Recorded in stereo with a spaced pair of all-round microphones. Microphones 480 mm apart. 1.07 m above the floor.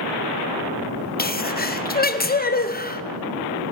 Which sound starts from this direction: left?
A sneeze, at 1.2 s.